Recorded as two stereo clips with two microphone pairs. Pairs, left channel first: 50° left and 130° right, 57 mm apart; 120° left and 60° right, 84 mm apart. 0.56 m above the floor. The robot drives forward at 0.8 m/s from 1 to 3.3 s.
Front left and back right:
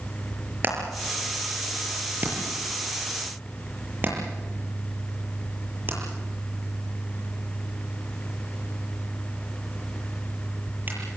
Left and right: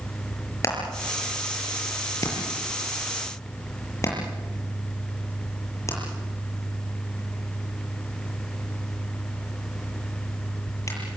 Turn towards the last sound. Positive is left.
turn(degrees=175)